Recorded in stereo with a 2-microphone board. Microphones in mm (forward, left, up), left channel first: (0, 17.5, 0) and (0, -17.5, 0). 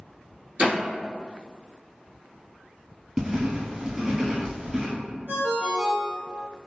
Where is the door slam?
45° right (ahead or behind), 1.3 m.